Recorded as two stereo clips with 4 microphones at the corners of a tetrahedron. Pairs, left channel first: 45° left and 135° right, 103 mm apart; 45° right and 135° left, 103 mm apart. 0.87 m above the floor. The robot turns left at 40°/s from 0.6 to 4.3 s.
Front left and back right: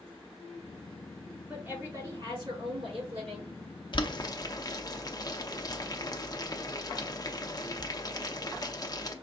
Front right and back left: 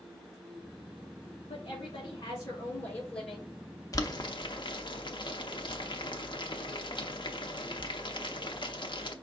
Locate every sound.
1.5 s a woman speaking: 60° right, 3 m; by 3.5 s 140° right, 3 m
3.9 s boiling: 10° left, 0.8 m; by 9.1 s 5° right, 0.8 m